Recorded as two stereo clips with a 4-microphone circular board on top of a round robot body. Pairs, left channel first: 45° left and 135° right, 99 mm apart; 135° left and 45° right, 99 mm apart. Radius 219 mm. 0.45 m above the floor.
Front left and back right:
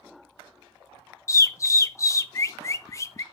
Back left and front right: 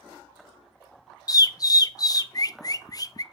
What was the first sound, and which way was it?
A bird, 95° left.